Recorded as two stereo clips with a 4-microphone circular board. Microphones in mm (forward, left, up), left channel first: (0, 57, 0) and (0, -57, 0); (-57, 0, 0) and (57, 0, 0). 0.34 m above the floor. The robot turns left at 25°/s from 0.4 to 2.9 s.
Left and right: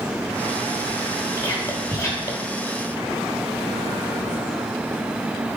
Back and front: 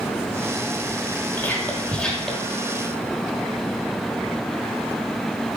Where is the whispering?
125° left, 1.0 m; by 2.5 s 100° left, 1.0 m.